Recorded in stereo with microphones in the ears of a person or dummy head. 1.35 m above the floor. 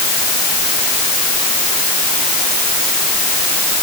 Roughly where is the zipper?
I don't hear a zipper.